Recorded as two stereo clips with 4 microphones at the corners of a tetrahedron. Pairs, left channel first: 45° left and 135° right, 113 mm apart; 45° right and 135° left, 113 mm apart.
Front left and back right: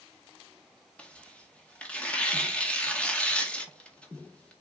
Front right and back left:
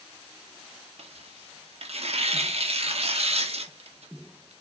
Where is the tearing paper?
125° left, 1.9 m.